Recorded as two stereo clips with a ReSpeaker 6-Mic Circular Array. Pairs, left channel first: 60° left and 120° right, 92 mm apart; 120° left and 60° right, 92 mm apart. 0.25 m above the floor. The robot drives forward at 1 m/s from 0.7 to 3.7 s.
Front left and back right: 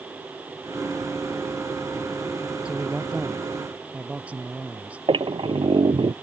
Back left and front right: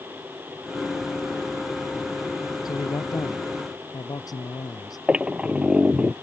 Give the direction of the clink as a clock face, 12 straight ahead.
No clink in this recording.